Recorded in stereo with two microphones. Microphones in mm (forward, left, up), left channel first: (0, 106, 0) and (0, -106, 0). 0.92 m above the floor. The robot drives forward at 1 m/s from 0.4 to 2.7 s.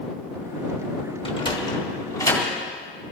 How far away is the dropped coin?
No dropped coin in this recording.